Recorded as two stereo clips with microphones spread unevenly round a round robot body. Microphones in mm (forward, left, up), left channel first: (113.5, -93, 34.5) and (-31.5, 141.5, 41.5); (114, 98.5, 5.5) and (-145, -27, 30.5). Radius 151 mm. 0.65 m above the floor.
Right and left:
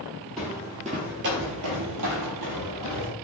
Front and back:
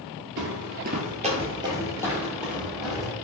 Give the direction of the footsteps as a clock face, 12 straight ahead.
5 o'clock.